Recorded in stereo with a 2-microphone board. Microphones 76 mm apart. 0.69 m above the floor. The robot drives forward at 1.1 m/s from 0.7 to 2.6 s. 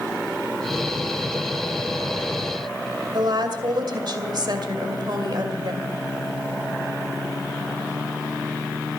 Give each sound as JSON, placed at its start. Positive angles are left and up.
{"t": 3.1, "sound": "a woman speaking", "side_deg": -60, "distance_m": 2.5}